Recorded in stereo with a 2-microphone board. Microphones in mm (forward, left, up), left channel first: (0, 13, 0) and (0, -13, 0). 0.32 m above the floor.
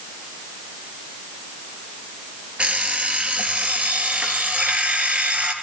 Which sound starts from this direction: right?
An alarm clock, at 2.6 s.